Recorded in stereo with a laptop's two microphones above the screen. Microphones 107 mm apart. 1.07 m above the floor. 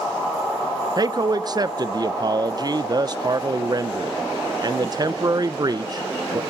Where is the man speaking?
40° right (ahead or behind), 0.5 m.